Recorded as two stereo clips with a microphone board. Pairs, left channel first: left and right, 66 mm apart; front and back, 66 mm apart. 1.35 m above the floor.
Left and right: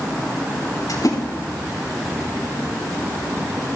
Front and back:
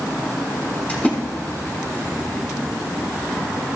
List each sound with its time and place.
0.9 s a splash: 70° left, 6 m